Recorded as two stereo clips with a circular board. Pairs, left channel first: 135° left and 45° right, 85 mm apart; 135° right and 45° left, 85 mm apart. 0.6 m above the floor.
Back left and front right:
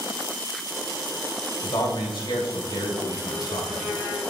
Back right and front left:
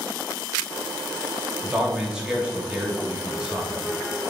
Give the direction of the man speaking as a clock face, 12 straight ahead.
8 o'clock.